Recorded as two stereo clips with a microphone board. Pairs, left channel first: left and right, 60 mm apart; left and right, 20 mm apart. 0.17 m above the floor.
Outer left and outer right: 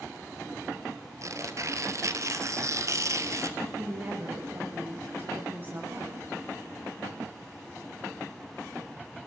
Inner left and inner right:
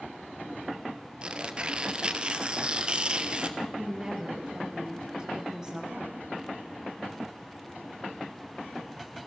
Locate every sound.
1.2 s tearing paper: 60° right (ahead or behind), 1.6 m
3.6 s a woman speaking: 35° right (ahead or behind), 5 m